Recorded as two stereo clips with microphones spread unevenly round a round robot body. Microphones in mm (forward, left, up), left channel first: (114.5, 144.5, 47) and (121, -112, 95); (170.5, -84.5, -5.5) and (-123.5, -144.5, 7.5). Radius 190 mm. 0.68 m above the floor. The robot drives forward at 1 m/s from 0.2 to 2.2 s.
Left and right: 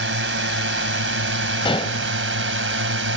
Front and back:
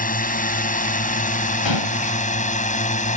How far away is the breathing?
I don't hear breathing.